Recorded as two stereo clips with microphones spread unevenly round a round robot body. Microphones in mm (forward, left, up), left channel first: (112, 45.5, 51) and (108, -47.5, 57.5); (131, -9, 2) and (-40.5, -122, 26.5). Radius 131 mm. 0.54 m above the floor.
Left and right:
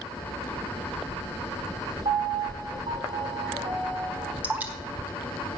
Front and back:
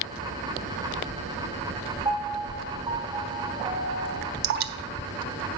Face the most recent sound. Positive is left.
turn(degrees=-170)